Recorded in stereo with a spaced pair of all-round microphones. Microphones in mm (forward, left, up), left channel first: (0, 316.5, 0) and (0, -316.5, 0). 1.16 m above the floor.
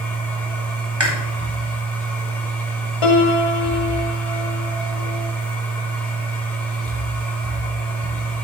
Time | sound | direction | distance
0.0 | a machine running | centre (ahead or behind) | 2 m
1.0 | chewing | 45° right (ahead or behind) | 2.5 m
3.0 | a piano | 55° left (ahead or behind) | 1.0 m